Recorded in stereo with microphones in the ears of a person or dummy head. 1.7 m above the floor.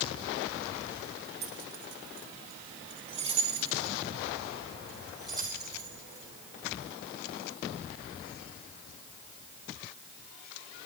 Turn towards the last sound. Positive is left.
turn(degrees=-15)  # may be behind; listen again after turning